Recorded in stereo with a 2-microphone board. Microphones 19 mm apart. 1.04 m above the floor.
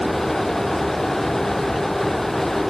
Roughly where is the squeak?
Left.